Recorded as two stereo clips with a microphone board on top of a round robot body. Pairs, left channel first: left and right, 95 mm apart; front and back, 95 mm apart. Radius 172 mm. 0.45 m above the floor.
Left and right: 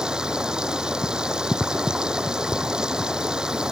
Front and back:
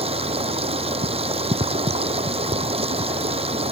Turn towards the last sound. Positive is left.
turn(degrees=-170)